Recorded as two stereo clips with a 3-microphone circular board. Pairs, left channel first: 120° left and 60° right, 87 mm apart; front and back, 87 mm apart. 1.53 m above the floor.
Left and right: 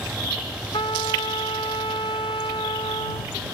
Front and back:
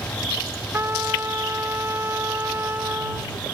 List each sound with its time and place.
0.7 s a trumpet: 115° left